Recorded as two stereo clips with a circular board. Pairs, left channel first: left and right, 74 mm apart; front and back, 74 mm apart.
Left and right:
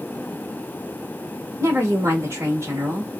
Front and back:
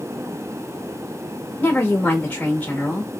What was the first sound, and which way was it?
A woman speaking, 65° right.